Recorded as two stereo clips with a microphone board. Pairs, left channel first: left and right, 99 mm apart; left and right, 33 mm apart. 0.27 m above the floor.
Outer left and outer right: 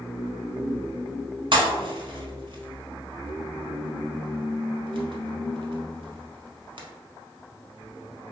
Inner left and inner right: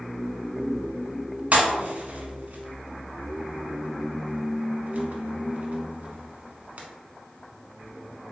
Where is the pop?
55° right (ahead or behind), 0.7 m.